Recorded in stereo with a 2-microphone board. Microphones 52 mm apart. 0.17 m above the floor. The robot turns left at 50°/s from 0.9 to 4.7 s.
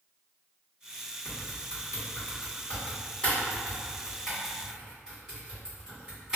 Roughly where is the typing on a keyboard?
Centre.